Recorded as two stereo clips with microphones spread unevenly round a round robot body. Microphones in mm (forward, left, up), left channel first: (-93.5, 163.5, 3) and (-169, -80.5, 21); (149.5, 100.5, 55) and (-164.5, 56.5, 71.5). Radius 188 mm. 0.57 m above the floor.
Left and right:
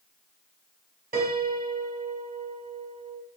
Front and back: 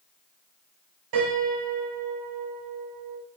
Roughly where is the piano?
Behind.